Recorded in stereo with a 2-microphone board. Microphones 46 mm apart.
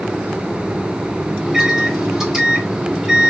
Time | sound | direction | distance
1.4 | a microwave | 5° right (ahead or behind) | 1.5 m